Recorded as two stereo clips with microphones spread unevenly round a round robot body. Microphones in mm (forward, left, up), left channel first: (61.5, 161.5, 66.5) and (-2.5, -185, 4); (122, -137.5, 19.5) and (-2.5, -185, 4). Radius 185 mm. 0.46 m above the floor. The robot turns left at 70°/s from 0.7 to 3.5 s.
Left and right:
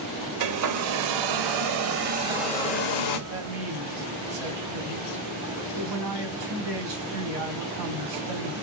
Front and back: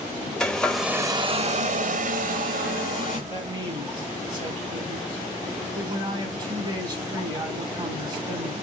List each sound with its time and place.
0.4 s a hair dryer: 65° right, 0.9 m; by 3.2 s 120° left, 0.9 m
3.3 s a man speaking: 90° right, 2.5 m; by 8.5 s 105° right, 2.5 m